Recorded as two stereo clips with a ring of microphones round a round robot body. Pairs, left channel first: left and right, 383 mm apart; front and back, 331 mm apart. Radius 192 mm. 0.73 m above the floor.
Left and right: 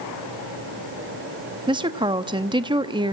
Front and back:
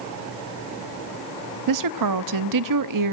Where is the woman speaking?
165° right, 0.8 m.